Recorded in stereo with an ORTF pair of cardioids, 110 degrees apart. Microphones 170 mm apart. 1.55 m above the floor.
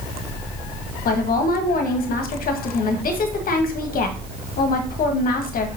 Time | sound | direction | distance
1.1 | a woman speaking | 60° left | 1.6 m